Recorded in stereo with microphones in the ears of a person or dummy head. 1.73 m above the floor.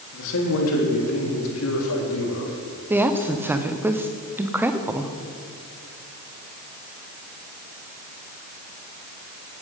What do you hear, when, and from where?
0.1 s a man speaking: 70° left (ahead or behind), 3 m
2.9 s a woman speaking: 5° right (ahead or behind), 0.9 m